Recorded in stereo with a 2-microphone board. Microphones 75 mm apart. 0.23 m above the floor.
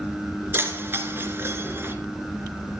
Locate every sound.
0.5 s keys jangling: 30° right (ahead or behind), 1.9 m